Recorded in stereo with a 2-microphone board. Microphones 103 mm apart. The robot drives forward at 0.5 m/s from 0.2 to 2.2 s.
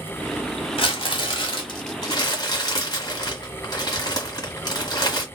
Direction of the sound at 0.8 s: 60° left (ahead or behind).